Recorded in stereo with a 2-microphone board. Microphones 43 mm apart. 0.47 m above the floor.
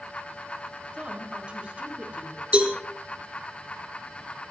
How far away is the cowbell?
About 3.5 m.